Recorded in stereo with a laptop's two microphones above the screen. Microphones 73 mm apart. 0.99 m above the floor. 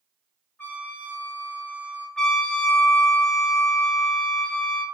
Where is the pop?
I don't hear a pop.